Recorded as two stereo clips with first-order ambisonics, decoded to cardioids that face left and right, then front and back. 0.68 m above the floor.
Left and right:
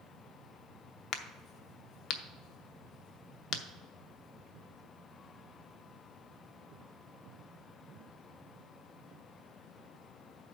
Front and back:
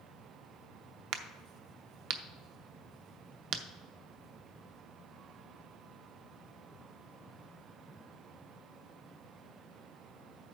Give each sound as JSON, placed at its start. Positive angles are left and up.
{"t": 1.1, "sound": "a crack", "azimuth_deg": 140, "distance_m": 0.7}